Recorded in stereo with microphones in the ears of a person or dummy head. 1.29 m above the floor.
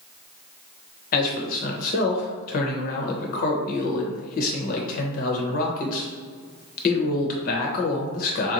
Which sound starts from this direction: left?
A man speaking, at 1.1 s.